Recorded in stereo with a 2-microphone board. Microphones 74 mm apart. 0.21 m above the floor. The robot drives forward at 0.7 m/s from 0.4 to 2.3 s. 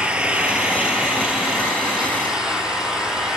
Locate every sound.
0.0 s an engine running: 15° right (ahead or behind), 1.9 m; by 3.4 s 10° right (ahead or behind), 3 m